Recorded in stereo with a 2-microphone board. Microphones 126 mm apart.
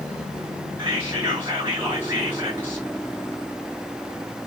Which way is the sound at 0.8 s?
25° right (ahead or behind).